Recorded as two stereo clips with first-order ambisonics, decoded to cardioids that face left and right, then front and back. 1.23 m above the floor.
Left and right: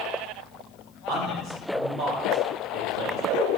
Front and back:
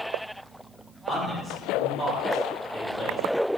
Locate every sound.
1.1 s a man speaking: 85° right, 2.0 m